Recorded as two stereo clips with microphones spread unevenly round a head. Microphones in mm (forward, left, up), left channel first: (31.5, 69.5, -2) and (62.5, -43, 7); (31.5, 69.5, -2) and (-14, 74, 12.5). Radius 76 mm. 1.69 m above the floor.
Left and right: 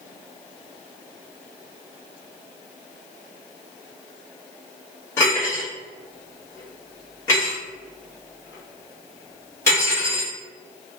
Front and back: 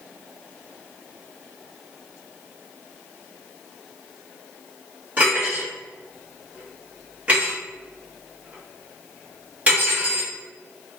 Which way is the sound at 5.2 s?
175° left.